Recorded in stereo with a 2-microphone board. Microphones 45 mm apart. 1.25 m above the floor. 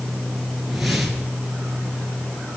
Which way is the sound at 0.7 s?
5° right (ahead or behind).